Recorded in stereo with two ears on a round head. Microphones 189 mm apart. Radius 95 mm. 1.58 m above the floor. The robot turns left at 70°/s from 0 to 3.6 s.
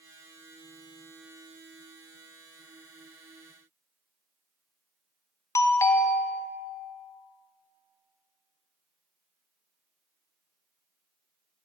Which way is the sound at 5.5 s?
15° left (ahead or behind).